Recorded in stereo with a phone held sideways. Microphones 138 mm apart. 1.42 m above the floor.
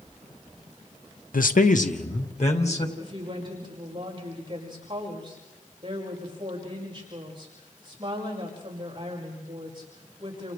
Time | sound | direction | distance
1.3 | a man speaking | 80° left | 0.8 m
3.0 | a woman speaking | 35° right (ahead or behind) | 5.5 m